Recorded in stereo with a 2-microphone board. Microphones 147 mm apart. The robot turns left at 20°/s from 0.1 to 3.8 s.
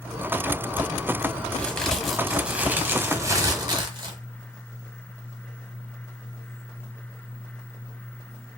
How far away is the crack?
About 1.1 m.